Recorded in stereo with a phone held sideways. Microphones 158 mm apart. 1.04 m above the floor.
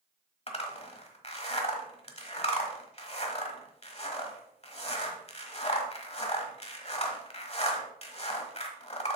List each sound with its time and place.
0.5 s a zipper: 40° left (ahead or behind), 1.2 m